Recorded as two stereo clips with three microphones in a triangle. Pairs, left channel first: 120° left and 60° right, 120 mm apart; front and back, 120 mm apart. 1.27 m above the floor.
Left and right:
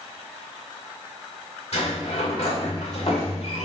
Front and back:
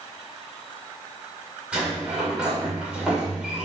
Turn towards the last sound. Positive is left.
turn(degrees=100)